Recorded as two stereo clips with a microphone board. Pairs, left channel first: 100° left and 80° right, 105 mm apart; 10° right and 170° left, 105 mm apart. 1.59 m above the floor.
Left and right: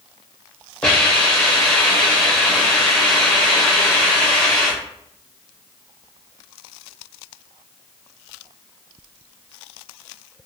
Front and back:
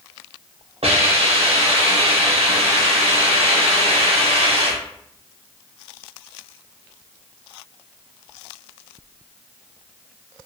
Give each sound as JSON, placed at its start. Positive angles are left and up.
{"t": 0.8, "sound": "a hiss", "azimuth_deg": 180, "distance_m": 1.1}